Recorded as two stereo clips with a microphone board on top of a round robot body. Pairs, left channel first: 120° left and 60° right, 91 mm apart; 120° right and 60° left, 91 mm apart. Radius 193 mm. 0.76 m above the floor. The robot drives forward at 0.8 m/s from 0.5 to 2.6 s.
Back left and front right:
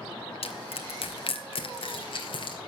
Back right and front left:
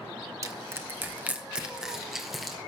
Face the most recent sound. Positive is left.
turn(degrees=150)